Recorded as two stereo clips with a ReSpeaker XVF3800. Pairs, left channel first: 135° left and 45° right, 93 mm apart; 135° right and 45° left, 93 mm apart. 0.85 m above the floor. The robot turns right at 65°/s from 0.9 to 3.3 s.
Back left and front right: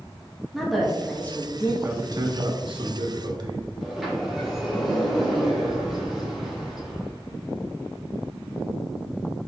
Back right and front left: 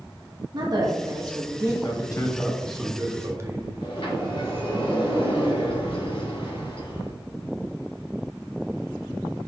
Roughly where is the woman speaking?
Ahead left.